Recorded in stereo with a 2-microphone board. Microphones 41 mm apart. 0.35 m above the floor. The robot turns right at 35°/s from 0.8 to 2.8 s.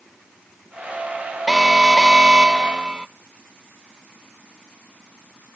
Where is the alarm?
Centre (ahead or behind), 0.5 m; by 3.1 s 20° right (ahead or behind), 0.5 m.